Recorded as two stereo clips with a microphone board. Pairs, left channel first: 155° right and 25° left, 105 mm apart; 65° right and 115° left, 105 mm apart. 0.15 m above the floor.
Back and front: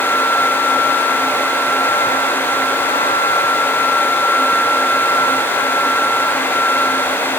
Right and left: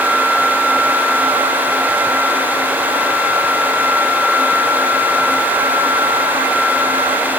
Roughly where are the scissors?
No scissors in this recording.